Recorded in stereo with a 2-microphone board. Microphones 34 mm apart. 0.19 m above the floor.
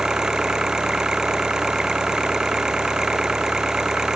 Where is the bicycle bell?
I don't hear a bicycle bell.